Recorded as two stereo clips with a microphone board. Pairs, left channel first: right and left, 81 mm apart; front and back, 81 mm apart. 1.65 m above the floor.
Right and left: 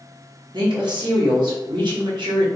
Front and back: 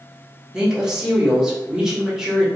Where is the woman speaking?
95° left, 1.0 m.